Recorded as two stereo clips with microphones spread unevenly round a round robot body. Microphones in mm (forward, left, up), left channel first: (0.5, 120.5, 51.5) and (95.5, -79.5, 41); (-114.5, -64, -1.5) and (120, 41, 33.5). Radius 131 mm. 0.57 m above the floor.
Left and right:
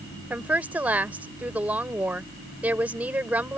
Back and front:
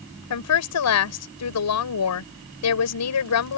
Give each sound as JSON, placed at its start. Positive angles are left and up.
{"t": 0.3, "sound": "a woman speaking", "azimuth_deg": -150}